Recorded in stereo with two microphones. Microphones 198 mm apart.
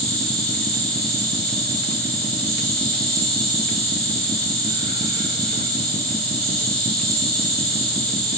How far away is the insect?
About 5.5 m.